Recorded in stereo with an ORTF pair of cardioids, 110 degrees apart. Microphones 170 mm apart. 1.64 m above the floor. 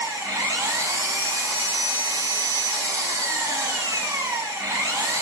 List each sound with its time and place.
0.0 s an engine running: 20° right, 2 m